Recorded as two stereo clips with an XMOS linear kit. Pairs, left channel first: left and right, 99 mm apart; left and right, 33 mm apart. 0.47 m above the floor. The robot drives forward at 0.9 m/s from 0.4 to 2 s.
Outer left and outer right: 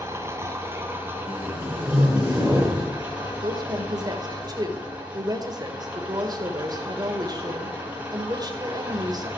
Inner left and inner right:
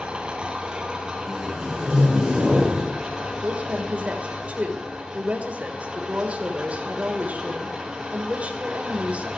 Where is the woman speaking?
45° right (ahead or behind), 1.9 m.